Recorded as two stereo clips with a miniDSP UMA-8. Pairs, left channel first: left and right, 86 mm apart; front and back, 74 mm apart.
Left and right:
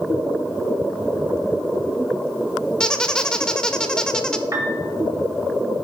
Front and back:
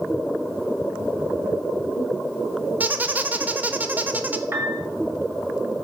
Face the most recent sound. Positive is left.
turn(degrees=-135)